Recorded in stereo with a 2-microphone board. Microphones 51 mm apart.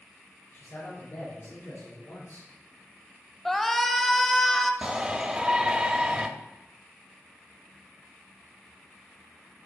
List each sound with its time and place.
0.5 s a man speaking: 75° left (ahead or behind), 4.5 m; by 2.5 s 70° left (ahead or behind), 4.5 m
3.5 s a shout: 5° left (ahead or behind), 1.0 m
4.8 s a shout: 15° right (ahead or behind), 0.9 m